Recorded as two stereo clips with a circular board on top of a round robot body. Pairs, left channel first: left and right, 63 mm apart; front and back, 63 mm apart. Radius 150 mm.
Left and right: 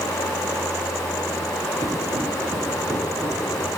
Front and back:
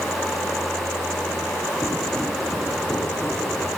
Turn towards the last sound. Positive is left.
turn(degrees=-70)